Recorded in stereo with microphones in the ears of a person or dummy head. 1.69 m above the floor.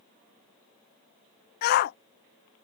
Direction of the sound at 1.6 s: 55° left (ahead or behind).